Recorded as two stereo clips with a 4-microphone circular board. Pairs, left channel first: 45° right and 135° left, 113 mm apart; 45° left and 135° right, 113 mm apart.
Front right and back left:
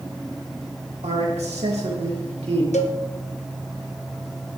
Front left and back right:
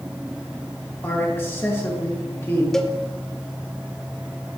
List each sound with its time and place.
1.0 s a man speaking: 115° left, 2.5 m
2.7 s a cowbell: 40° right, 1.0 m